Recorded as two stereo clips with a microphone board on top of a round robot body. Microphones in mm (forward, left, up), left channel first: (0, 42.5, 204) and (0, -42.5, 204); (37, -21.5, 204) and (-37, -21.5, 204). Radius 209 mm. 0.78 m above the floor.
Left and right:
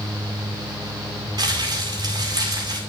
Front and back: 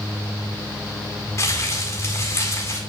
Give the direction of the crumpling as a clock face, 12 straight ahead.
2 o'clock.